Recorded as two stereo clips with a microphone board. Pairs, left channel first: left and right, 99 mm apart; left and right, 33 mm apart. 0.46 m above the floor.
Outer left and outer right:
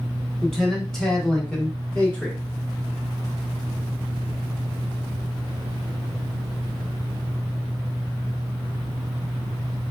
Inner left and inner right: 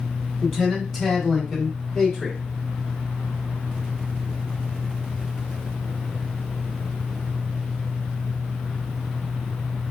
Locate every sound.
0.4 s a man speaking: centre (ahead or behind), 1.0 m; by 2.4 s 10° left (ahead or behind), 0.9 m